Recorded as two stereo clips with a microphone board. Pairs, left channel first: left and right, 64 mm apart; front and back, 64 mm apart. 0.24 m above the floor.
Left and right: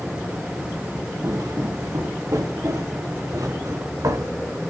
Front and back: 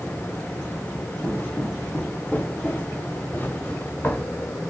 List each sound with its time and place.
1.2 s footsteps: 75° right, 4 m; by 4.4 s 65° right, 5 m